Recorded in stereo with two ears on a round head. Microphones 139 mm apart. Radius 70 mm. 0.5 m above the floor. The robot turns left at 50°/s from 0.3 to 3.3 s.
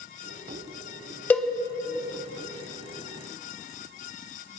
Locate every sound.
1.3 s a cowbell: 10° left (ahead or behind), 0.5 m; by 1.5 s 5° left (ahead or behind), 0.5 m